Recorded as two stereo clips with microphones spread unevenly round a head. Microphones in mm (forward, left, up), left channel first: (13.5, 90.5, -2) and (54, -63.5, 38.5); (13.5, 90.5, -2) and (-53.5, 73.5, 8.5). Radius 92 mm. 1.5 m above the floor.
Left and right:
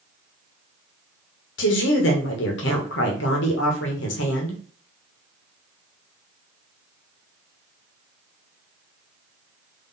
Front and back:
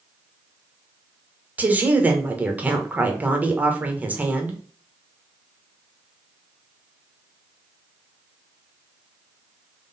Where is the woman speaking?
130° left, 1.3 m.